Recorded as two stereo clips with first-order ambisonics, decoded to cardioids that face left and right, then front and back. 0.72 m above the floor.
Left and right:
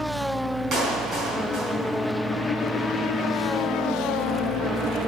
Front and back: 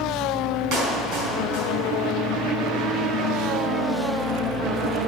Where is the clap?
145° right, 5 m.